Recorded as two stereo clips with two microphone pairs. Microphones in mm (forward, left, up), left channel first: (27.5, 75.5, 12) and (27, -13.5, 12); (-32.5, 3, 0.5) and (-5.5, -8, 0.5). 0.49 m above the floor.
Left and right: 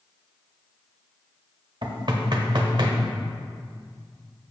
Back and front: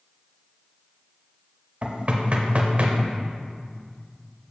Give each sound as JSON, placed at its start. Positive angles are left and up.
{"t": 1.8, "sound": "knocking", "azimuth_deg": -65, "distance_m": 1.1}